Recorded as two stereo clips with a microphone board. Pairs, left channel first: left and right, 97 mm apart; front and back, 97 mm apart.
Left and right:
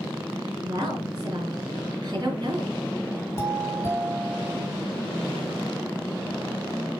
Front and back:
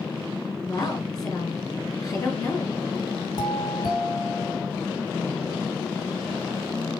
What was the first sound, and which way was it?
A woman speaking, 45° right.